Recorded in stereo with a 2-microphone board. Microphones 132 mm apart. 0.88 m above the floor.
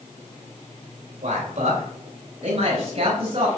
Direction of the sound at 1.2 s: 60° right (ahead or behind).